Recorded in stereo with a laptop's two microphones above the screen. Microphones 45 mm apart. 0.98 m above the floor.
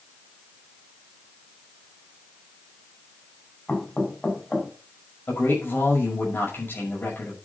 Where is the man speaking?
50° left (ahead or behind), 6 m.